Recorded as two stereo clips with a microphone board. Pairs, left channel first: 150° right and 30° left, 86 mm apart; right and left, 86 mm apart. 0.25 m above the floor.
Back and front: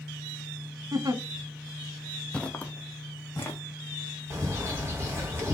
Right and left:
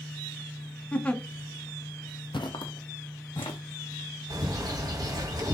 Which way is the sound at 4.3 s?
75° left.